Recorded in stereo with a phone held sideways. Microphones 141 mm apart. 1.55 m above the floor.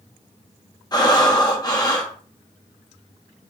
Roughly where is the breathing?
Left.